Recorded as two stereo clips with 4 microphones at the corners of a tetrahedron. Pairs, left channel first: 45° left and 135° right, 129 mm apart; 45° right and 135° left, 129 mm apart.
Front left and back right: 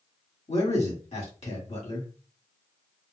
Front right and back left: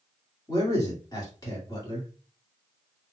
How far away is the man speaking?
About 1.8 m.